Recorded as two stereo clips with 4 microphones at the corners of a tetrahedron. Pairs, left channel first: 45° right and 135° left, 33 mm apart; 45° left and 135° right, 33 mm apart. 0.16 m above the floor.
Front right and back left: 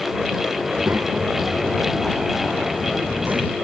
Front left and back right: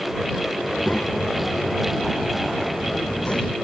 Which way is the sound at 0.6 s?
100° left.